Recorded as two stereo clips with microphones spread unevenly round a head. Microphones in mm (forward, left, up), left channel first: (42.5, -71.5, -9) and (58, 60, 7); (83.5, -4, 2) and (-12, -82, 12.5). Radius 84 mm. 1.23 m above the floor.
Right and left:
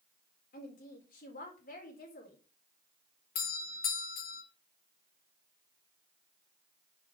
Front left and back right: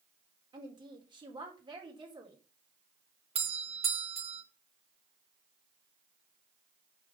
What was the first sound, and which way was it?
A woman speaking, 90° right.